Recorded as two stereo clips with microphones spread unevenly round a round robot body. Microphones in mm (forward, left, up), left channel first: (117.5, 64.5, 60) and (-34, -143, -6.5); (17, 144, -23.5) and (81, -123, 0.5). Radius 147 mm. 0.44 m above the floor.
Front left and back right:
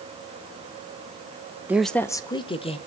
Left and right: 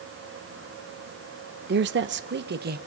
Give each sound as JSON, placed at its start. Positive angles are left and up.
{"t": 1.7, "sound": "a woman speaking", "azimuth_deg": -85, "distance_m": 0.8}